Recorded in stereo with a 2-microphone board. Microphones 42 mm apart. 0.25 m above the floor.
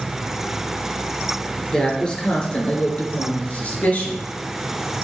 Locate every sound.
1.7 s a woman speaking: 20° left (ahead or behind), 4.5 m; by 4.2 s 45° left (ahead or behind), 4 m